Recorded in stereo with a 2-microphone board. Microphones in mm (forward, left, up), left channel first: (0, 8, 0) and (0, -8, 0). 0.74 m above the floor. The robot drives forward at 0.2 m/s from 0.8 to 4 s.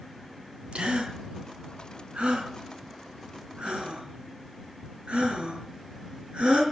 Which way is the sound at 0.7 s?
90° right.